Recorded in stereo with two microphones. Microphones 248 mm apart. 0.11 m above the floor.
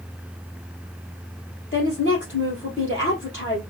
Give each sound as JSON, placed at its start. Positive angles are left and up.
{"t": 1.7, "sound": "a woman speaking", "side_deg": 50, "distance_m": 3.0}